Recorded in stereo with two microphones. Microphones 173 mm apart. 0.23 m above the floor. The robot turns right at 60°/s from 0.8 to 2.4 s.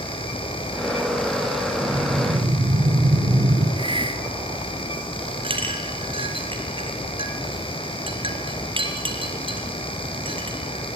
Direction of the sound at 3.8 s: 30° right (ahead or behind).